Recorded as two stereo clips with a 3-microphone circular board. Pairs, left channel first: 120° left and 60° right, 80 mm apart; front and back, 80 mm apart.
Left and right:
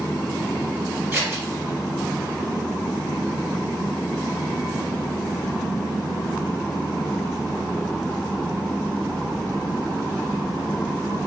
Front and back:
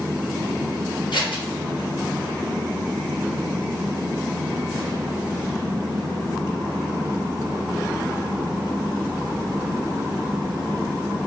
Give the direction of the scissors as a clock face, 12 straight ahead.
12 o'clock.